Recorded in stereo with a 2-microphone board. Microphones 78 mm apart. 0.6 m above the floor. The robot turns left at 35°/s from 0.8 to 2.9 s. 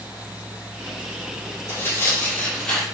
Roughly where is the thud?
I don't hear a thud.